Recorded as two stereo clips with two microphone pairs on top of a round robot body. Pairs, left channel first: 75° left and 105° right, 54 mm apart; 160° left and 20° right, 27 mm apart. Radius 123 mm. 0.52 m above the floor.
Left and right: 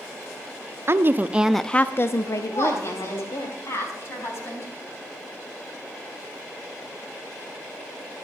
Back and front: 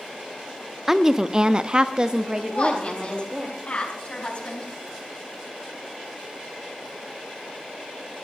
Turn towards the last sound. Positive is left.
turn(degrees=120)